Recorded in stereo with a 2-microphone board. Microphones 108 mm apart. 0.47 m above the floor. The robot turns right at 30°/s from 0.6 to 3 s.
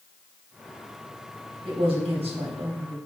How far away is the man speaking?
About 3.5 m.